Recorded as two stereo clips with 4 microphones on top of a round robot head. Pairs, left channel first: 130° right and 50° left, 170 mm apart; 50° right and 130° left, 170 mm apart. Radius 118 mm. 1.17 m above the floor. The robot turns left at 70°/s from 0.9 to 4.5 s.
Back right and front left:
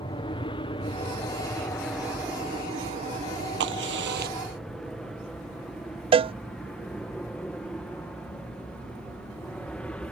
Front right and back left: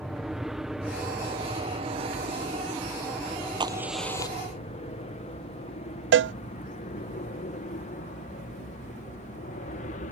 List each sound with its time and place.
0.0 s an aircraft: 145° right; by 10.1 s 45° right
3.6 s a crack: 65° left; by 4.4 s 10° left
6.1 s a cowbell: 115° left